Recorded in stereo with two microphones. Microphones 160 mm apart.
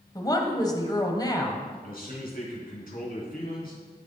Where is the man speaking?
65° left (ahead or behind), 3.5 m.